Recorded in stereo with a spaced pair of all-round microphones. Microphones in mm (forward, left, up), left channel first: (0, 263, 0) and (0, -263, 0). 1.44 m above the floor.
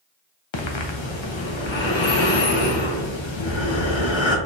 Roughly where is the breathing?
Left.